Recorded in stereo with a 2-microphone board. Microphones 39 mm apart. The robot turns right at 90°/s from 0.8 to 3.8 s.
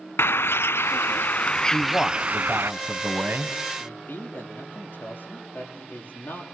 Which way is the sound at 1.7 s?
115° left.